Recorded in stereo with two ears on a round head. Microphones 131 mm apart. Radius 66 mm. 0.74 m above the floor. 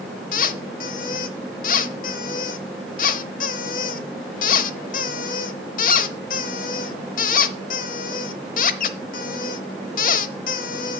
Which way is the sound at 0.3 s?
60° left (ahead or behind).